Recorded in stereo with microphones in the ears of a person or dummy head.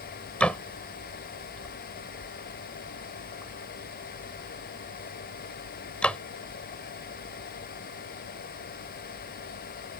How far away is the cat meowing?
No cat meowing in this recording.